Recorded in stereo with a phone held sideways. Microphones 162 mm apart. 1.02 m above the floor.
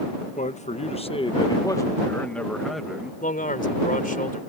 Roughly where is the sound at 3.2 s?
Left.